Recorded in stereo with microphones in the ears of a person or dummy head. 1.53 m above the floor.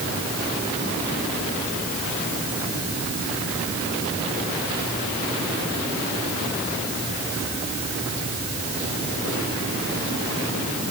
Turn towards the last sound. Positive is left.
No sound to turn to.